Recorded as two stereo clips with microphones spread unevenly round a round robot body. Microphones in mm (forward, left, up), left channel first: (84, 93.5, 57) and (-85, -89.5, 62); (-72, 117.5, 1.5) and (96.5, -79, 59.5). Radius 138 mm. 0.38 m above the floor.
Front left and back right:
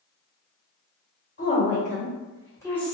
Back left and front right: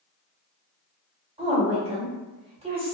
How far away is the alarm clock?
No alarm clock in this recording.